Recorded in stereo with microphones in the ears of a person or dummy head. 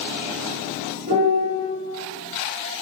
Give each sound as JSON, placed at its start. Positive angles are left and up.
{"t": 1.1, "sound": "a piano", "side_deg": -40, "distance_m": 1.4}